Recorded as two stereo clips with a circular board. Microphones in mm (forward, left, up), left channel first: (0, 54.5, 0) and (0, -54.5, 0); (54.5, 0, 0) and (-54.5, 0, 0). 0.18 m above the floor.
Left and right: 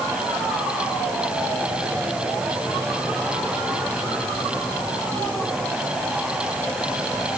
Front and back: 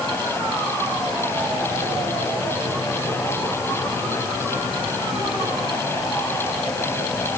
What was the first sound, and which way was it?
Only background noise.